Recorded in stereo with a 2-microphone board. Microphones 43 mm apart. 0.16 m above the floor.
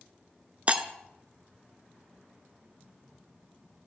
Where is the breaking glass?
30° right (ahead or behind), 0.6 m.